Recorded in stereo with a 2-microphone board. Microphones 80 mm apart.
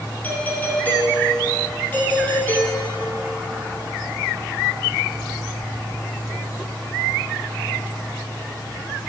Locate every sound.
0.2 s a doorbell: 20° left (ahead or behind), 3 m